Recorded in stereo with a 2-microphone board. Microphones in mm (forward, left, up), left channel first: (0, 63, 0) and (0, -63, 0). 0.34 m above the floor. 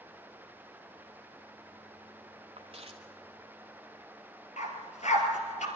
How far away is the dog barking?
About 3 m.